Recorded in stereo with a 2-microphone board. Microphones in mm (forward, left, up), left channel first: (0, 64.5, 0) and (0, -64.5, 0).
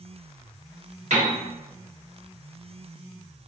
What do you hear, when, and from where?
1.1 s a piano: 70° right (ahead or behind), 1.8 m